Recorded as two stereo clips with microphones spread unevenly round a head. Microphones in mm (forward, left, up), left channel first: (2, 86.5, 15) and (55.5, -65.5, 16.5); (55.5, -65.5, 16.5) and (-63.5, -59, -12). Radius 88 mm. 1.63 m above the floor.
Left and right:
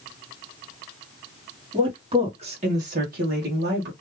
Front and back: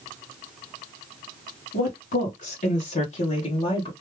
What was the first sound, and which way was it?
A woman speaking, 5° right.